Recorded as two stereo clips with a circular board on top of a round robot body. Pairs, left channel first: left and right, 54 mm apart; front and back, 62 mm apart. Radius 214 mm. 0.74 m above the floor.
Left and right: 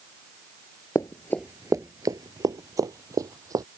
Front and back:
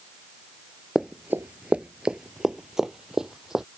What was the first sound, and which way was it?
Running footsteps, 95° left.